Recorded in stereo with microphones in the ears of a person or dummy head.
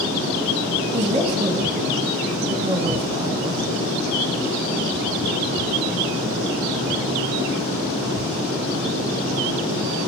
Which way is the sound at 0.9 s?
30° right (ahead or behind).